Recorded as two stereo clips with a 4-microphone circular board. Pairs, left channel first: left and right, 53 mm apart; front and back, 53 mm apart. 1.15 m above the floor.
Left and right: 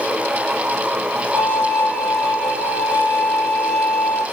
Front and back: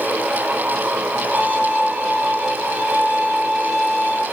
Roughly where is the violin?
Behind right.